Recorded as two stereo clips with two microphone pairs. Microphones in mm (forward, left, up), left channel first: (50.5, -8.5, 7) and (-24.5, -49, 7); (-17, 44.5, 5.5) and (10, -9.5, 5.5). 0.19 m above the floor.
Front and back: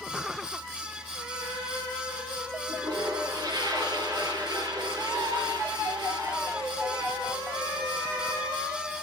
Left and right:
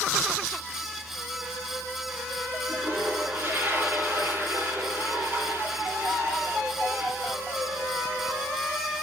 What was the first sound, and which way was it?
A toilet flushing, 120° right.